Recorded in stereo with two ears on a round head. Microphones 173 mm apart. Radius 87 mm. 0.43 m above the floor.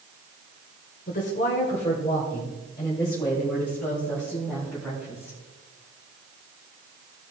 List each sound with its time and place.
1.1 s a woman speaking: 45° left (ahead or behind), 1.6 m; by 5.4 s centre (ahead or behind), 3 m